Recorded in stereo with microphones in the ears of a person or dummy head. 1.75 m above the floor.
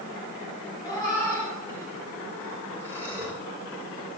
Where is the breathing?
15° left (ahead or behind), 7.5 m.